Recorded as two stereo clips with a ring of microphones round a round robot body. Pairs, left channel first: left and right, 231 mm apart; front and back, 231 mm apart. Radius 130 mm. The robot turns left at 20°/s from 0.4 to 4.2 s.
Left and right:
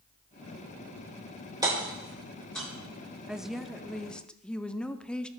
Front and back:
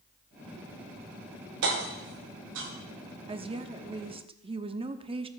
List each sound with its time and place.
1.6 s hammering: 165° right, 5 m; by 2.7 s 175° left, 5 m
3.3 s a woman speaking: 170° right, 0.7 m; by 5.3 s 170° left, 0.7 m